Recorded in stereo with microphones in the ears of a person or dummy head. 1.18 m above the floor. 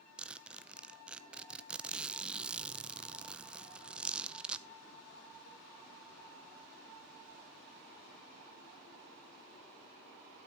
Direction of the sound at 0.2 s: 10° right (ahead or behind).